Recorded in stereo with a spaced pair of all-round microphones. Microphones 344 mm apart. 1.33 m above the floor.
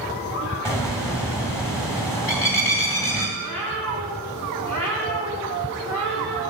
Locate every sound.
0.7 s a bird: 10° left (ahead or behind), 2 m
3.4 s a cat meowing: 60° left (ahead or behind), 3.5 m